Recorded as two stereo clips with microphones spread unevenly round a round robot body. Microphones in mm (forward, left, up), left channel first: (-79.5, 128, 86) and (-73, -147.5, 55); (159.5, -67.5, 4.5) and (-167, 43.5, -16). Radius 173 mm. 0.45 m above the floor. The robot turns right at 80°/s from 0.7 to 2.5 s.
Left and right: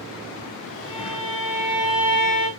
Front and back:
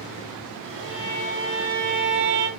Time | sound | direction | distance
0.8 | a violin | 35° left | 4 m